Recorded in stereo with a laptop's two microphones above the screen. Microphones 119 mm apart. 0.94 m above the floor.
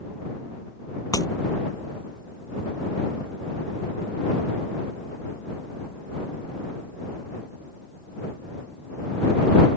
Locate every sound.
1.1 s breaking glass: 30° left (ahead or behind)